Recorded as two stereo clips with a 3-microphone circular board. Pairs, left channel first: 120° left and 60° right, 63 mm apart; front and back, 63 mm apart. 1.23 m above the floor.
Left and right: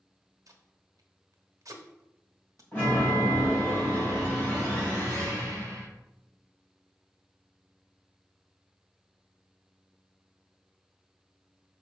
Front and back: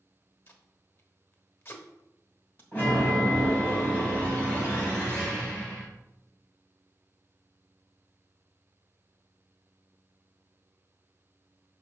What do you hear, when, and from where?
0.5 s tape being pulled: 45° right, 1.1 m
2.7 s a chime: 60° left, 4 m